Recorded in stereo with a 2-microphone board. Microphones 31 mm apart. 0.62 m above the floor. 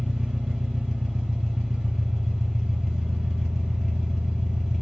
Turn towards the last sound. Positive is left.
turn(degrees=-15)  # may be behind; listen again after turning